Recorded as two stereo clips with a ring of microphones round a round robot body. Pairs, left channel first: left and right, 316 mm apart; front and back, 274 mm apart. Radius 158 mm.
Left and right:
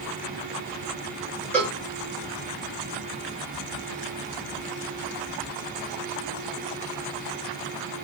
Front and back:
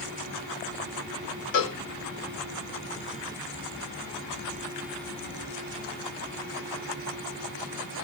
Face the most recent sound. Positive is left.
turn(degrees=5)